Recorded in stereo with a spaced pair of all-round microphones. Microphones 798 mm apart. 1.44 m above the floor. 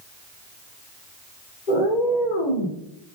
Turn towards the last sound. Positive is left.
turn(degrees=80)